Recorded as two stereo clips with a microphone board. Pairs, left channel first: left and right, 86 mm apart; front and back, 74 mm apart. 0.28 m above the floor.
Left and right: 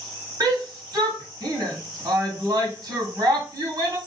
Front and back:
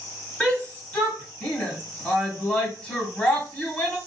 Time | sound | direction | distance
0.4 | a shout | 70° right | 1.6 m